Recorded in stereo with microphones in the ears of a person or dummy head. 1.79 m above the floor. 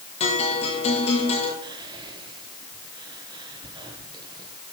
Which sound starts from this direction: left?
A guitar, at 0.2 s.